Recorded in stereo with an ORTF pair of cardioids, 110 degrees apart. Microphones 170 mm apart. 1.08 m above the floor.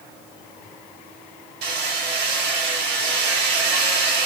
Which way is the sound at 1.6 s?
65° right.